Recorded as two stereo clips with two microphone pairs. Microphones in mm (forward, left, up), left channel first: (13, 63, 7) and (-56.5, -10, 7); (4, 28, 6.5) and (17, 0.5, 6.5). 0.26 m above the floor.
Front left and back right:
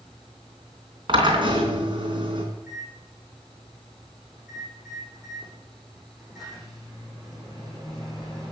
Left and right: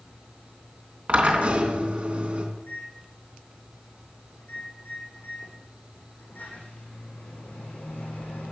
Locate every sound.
1.1 s a drill: 105° right, 3.5 m
2.5 s a microwave: 140° left, 9 m